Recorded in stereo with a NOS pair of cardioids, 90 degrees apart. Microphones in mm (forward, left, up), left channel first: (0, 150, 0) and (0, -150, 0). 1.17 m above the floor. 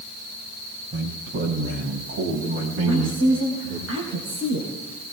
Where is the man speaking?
40° right, 6.5 m; by 3.9 s 60° right, 10 m.